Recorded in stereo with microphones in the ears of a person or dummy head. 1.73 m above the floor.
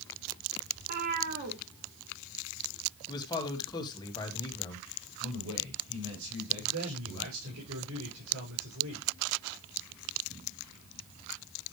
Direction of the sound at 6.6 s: 85° right.